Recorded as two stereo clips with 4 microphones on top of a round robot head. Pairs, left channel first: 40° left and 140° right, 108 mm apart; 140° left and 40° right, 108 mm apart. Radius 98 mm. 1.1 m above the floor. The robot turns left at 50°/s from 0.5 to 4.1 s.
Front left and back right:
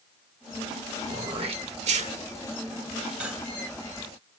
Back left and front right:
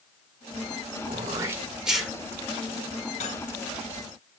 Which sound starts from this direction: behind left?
Cutlery clinking, at 3.2 s.